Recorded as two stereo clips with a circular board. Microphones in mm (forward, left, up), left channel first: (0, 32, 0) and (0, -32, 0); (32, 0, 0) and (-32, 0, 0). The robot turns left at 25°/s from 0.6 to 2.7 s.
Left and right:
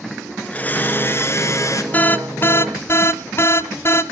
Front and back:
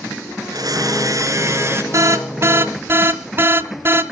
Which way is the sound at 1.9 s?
150° left.